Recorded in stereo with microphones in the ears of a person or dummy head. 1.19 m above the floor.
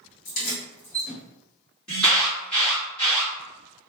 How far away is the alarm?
About 1.6 m.